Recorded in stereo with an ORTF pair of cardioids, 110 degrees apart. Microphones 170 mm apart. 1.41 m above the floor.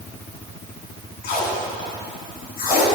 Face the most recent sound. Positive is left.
turn(degrees=65)